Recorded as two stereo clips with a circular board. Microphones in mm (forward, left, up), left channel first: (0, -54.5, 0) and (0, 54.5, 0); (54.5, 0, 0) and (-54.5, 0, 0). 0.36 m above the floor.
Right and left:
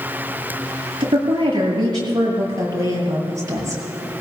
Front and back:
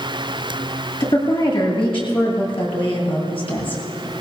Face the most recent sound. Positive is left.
turn(degrees=30)